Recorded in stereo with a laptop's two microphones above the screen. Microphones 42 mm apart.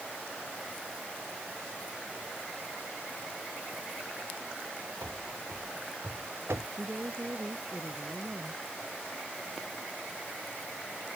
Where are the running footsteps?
80° right.